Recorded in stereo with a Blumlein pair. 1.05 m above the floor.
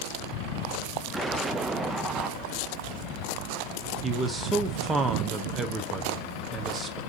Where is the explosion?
10° right, 0.5 m.